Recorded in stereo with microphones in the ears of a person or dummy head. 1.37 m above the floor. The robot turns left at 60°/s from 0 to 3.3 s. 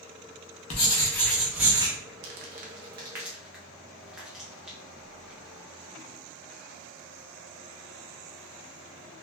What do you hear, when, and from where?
0.7 s writing: 40° left, 0.7 m; by 1.9 s 30° right, 0.7 m
2.2 s crumpling: 60° right (ahead or behind), 0.5 m; by 5.5 s 5° right (ahead or behind), 0.5 m